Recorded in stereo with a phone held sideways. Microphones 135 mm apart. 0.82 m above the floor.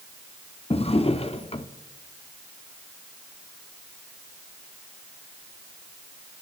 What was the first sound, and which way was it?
A drawer, 45° left (ahead or behind).